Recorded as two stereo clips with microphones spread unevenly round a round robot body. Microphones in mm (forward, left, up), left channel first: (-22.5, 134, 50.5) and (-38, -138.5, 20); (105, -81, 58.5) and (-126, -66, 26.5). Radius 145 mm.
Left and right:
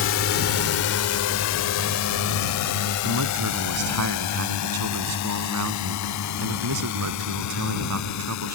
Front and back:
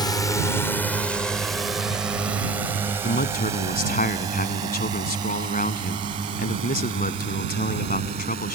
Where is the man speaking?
55° right.